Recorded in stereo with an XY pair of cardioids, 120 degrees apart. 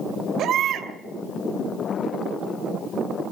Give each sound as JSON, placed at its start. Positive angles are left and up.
{"t": 0.4, "sound": "a baby crying", "azimuth_deg": -60, "distance_m": 2.5}